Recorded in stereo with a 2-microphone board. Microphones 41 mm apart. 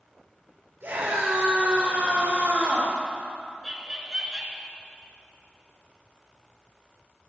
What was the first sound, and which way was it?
A scream, 70° right (ahead or behind).